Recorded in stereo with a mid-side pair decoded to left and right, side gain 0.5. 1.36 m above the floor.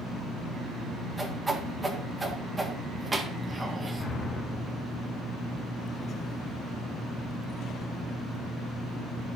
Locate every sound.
1.2 s a whoosh: 20° right, 1.5 m
4.0 s an explosion: 35° left, 3 m